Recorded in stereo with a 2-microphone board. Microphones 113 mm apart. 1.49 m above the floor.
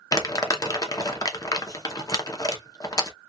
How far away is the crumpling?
About 0.7 m.